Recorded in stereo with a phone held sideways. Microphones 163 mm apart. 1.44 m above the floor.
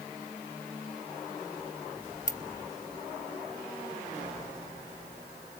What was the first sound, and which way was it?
A ringtone, 50° left (ahead or behind).